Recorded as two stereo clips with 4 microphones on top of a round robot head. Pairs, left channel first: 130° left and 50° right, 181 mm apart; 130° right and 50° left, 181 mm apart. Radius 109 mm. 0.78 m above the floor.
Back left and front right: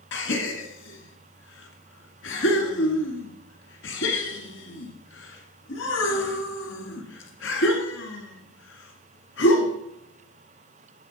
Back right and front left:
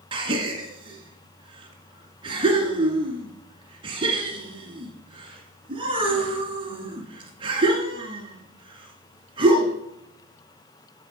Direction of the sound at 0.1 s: 110° left.